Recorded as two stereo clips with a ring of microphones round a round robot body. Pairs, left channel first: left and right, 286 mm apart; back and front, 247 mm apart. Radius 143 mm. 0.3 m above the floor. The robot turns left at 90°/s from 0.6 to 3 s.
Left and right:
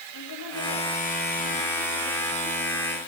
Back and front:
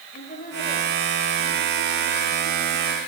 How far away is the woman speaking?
About 9 m.